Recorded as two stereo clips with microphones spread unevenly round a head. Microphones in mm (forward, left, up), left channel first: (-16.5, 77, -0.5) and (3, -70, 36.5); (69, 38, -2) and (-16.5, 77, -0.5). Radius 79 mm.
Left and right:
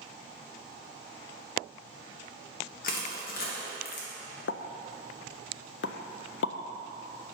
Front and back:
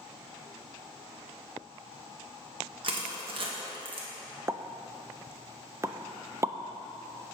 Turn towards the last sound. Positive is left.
turn(degrees=90)